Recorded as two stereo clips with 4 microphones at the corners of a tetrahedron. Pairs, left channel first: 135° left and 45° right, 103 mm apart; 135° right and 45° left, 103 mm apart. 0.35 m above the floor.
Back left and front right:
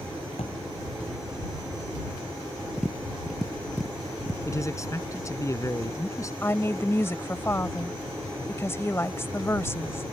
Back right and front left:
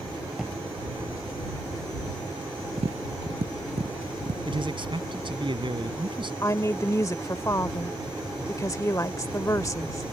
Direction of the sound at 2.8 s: 45° left.